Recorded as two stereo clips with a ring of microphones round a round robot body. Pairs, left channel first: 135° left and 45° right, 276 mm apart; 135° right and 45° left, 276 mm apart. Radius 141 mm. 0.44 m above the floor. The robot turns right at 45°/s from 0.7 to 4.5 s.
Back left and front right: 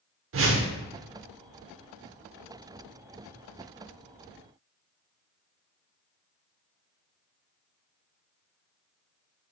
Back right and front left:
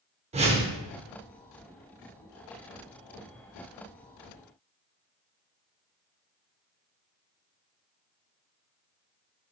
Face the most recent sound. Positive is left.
turn(degrees=155)